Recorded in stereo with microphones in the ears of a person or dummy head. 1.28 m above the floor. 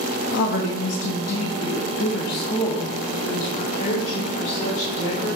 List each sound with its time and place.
0.3 s a woman speaking: 85° left, 1.4 m; by 5.4 s 35° left (ahead or behind), 3 m